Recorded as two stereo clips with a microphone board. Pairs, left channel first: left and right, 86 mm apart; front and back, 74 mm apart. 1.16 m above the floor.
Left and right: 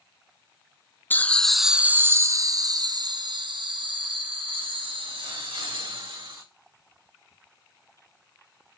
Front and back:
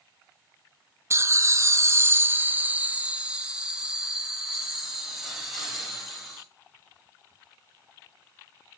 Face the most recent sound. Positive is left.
turn(degrees=-90)